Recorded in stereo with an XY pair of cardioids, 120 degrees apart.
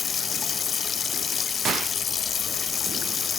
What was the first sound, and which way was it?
Running water, 40° left.